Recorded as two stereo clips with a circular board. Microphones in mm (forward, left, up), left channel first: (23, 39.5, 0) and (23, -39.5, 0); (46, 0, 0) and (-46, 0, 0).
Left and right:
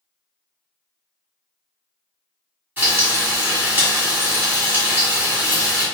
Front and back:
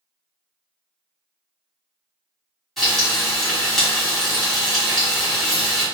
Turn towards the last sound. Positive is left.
turn(degrees=-90)